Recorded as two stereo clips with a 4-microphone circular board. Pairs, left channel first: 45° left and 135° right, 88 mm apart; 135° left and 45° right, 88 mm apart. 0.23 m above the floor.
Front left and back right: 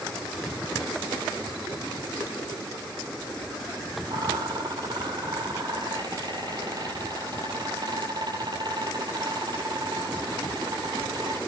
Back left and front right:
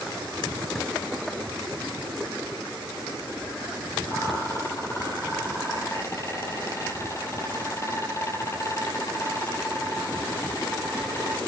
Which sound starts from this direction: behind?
A rattle, at 4.1 s.